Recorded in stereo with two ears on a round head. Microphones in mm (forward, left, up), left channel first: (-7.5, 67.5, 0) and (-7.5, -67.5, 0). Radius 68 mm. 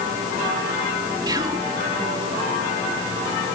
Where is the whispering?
25° right (ahead or behind).